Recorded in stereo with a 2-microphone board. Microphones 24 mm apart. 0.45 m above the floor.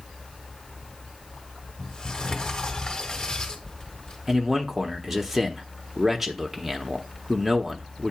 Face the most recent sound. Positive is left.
turn(degrees=-10)  # may be behind; listen again after turning